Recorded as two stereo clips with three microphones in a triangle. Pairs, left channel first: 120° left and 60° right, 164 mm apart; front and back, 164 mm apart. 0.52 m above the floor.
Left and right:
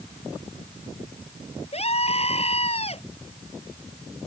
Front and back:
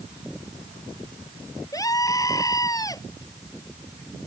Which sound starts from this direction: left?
A scream, at 1.7 s.